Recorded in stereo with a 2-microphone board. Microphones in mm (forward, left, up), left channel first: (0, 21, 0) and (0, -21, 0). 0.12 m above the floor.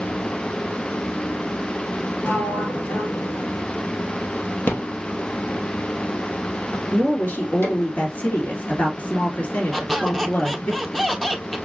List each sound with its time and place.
2.2 s a sliding door: 60° left (ahead or behind), 0.5 m
4.7 s a rattle: 65° left (ahead or behind), 2 m
6.9 s a woman speaking: 45° left (ahead or behind), 2 m
9.7 s a squeak: centre (ahead or behind), 0.9 m